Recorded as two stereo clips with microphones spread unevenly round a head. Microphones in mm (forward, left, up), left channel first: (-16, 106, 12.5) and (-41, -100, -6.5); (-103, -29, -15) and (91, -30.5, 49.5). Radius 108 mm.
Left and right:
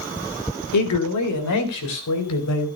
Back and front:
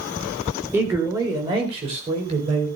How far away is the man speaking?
About 3.5 m.